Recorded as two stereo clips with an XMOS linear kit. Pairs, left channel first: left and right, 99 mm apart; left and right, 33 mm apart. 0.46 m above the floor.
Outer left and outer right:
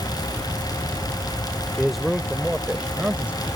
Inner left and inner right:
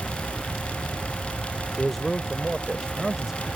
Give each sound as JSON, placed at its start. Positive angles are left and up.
{"t": 1.7, "sound": "a man speaking", "side_deg": 5}